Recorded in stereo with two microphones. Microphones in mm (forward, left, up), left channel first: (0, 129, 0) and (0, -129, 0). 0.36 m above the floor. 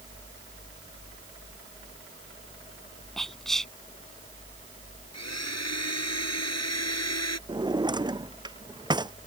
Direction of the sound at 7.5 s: 15° right (ahead or behind).